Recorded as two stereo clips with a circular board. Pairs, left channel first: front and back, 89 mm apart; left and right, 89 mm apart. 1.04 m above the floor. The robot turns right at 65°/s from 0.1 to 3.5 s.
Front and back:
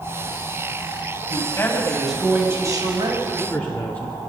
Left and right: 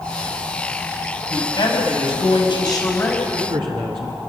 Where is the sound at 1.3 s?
40° left, 5.5 m; by 3.1 s 160° left, 5.5 m.